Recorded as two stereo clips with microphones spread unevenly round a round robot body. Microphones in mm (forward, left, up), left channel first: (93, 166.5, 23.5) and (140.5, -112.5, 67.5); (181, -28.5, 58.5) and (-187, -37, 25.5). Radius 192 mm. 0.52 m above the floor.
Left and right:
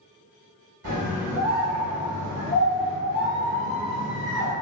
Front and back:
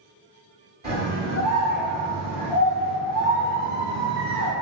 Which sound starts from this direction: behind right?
A scream, at 0.8 s.